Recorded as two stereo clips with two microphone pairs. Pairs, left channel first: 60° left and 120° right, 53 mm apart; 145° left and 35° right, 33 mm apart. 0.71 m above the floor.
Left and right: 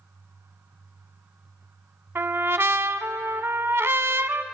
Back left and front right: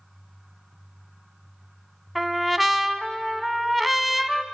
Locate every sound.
2.1 s a trumpet: 120° right, 0.8 m